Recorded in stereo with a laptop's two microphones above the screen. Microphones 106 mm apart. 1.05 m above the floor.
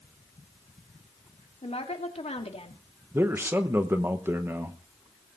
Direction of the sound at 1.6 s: 80° left.